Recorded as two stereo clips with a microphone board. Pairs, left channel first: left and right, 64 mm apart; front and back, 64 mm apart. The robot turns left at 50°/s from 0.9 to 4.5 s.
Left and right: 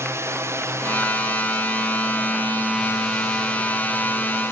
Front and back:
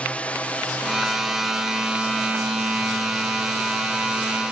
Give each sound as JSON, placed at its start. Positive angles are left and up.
{"t": 0.0, "sound": "a drone", "azimuth_deg": -65}